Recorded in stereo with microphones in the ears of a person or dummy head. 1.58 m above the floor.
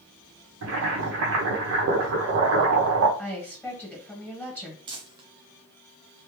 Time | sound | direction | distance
0.6 | boiling | 75° right (ahead or behind) | 1.0 m
3.2 | a woman speaking | 10° left (ahead or behind) | 1.7 m
4.9 | crumpling | 25° right (ahead or behind) | 0.6 m